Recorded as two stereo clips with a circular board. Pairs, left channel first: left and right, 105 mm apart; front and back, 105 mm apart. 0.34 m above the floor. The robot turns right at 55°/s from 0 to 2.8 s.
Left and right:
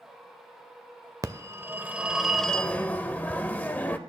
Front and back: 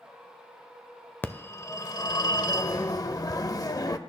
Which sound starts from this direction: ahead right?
A phone ringing, at 1.2 s.